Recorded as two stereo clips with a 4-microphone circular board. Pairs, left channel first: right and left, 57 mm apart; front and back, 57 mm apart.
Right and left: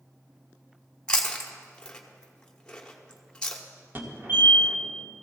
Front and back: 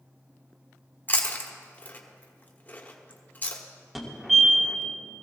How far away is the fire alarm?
About 2 m.